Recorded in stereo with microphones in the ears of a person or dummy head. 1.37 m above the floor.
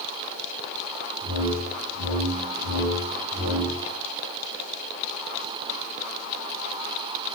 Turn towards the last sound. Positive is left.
turn(degrees=-60)  # may be behind; listen again after turning